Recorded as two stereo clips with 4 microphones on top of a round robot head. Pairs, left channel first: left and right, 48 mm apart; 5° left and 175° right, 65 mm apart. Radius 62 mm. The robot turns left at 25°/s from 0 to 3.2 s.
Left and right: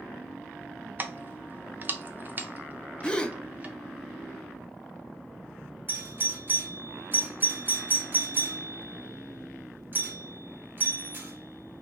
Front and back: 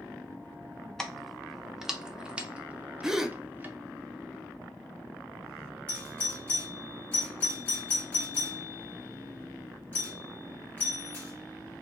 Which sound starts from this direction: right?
Keys jangling, at 1.0 s.